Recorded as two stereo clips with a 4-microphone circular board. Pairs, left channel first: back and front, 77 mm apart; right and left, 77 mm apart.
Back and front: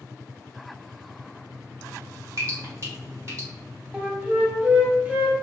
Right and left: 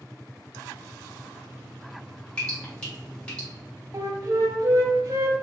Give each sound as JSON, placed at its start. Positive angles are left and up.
{"t": 2.4, "sound": "dripping", "azimuth_deg": -20, "distance_m": 1.2}
{"t": 3.9, "sound": "a flute", "azimuth_deg": 65, "distance_m": 0.6}